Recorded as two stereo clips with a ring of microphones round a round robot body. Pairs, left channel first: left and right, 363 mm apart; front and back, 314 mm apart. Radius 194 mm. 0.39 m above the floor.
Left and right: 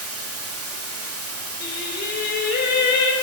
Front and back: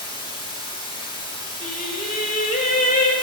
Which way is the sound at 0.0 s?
70° right.